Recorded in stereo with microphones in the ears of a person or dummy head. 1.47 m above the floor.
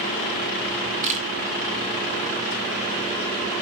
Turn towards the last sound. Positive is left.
turn(degrees=-40)  # may be behind; listen again after turning